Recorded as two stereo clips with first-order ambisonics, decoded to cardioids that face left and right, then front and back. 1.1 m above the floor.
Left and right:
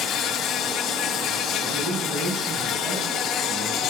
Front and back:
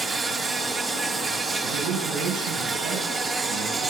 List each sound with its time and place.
0.0 s an insect: 115° left, 0.8 m
1.6 s a man speaking: 170° right, 7.5 m